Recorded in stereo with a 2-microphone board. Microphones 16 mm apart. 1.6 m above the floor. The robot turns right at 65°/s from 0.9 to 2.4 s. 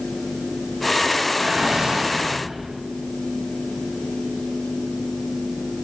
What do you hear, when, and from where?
1.4 s a whoosh: 115° right, 9 m; by 2.7 s 50° right, 9 m